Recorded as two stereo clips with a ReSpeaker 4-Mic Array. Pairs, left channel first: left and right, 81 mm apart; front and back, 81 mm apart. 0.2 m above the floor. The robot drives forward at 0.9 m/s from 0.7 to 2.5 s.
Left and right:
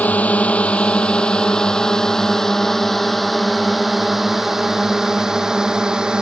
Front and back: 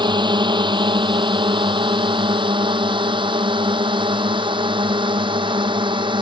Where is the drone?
160° left; by 6.2 s 170° right.